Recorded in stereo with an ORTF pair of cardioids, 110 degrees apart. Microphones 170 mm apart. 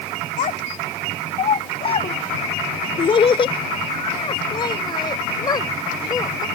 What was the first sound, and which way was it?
A child speaking, 55° left.